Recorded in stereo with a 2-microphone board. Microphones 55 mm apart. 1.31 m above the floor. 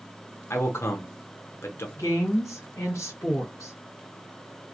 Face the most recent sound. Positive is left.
turn(degrees=80)